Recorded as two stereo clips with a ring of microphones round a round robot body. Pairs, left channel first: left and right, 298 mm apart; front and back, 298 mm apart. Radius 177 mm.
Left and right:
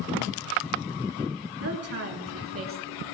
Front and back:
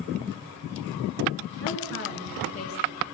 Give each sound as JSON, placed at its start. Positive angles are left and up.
{"t": 1.6, "sound": "a woman speaking", "azimuth_deg": -50, "distance_m": 5.0}